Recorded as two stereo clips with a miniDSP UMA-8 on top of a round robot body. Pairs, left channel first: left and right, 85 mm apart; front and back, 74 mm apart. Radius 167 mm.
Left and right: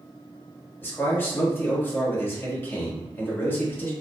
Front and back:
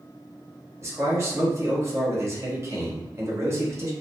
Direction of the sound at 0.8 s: 150° left.